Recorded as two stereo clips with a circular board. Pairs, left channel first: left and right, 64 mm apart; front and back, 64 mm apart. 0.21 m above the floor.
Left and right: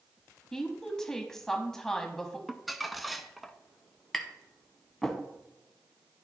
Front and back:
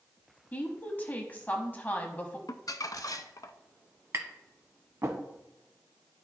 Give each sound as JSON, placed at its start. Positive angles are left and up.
{"t": 0.5, "sound": "a woman speaking", "azimuth_deg": 20, "distance_m": 1.0}
{"t": 2.5, "sound": "crumpling", "azimuth_deg": 0, "distance_m": 0.5}
{"t": 4.1, "sound": "tapping", "azimuth_deg": 175, "distance_m": 1.0}